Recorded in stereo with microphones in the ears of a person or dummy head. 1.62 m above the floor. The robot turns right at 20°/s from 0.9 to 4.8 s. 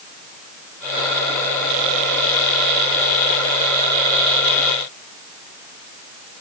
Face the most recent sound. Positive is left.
No sound to turn to.